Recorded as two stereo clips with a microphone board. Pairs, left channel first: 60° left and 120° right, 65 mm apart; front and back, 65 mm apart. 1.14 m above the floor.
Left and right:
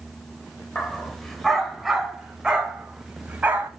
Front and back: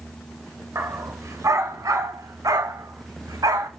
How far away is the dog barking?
About 2.5 m.